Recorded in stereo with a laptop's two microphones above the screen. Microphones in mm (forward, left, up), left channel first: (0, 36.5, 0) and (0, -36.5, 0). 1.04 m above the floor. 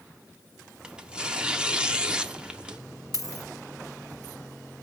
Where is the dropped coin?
55° left (ahead or behind), 1.5 m.